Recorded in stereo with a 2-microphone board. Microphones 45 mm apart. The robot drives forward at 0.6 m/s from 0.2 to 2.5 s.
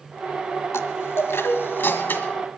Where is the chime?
75° left (ahead or behind), 1.4 m; by 2.4 s 45° left (ahead or behind), 1.9 m.